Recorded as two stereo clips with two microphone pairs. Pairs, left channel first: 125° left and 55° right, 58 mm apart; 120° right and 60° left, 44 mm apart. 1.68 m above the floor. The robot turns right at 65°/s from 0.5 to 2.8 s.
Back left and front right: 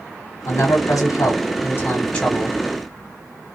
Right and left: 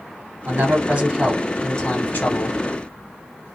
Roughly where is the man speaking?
Left.